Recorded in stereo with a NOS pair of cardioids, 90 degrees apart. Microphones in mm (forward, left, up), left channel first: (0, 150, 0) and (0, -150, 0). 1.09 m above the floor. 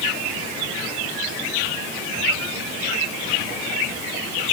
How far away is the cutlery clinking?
No cutlery clinking in this recording.